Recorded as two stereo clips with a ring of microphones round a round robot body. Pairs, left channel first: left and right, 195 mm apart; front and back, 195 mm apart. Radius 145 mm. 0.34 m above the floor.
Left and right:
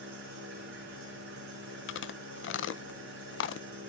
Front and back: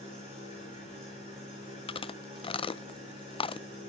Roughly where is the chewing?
Ahead left.